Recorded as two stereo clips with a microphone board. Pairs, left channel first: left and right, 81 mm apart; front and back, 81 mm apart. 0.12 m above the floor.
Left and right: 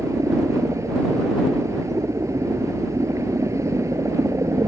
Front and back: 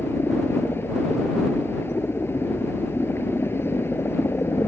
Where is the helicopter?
55° right.